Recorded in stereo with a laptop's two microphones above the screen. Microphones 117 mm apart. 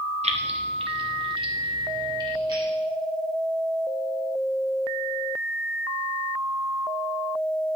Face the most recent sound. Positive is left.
turn(degrees=-40)  # may be behind; listen again after turning